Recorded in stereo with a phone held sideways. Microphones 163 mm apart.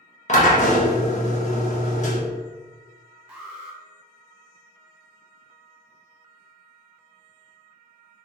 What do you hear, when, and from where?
0.3 s a drill: 45° left (ahead or behind), 1.2 m
3.3 s an alarm: 5° right (ahead or behind), 0.9 m